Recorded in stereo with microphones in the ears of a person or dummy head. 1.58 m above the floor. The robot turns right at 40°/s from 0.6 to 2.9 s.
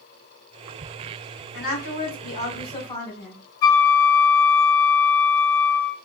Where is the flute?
65° left (ahead or behind), 1.0 m.